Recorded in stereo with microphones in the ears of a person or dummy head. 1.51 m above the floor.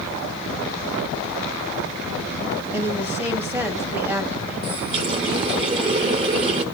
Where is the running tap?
30° right (ahead or behind), 1.0 m.